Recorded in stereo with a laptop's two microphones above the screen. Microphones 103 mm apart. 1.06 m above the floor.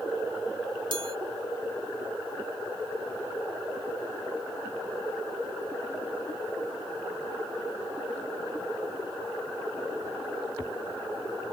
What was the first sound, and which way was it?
A chime, 50° right (ahead or behind).